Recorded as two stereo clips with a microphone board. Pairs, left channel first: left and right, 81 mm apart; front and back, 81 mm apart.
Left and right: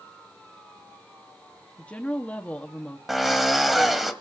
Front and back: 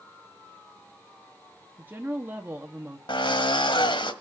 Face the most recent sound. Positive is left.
turn(degrees=0)